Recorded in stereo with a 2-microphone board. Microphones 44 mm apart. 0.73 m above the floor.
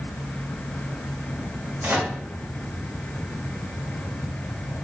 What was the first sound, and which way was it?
A microwave, 45° right (ahead or behind).